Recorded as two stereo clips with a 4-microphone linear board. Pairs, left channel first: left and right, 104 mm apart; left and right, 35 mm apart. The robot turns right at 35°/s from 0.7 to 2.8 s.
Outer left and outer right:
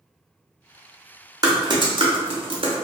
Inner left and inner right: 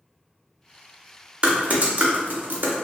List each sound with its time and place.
1.4 s typing on a keyboard: 35° right (ahead or behind), 0.6 m; by 2.7 s 65° right (ahead or behind), 0.6 m